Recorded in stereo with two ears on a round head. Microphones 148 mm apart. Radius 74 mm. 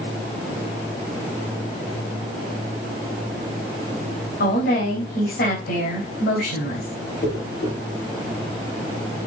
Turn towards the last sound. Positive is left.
turn(degrees=70)  # may be behind; listen again after turning